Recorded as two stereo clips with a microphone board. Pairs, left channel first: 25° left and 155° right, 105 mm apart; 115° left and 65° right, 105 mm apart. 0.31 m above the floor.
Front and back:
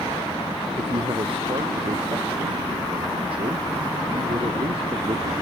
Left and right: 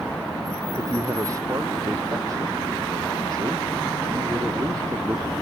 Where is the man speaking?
125° right.